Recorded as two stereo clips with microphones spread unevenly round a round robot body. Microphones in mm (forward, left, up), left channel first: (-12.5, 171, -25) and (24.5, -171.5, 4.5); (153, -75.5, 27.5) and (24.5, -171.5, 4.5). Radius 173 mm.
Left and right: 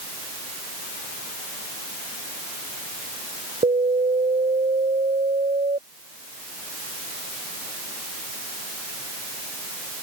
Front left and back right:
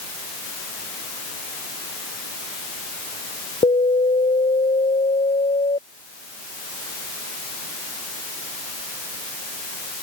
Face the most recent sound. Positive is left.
turn(degrees=-10)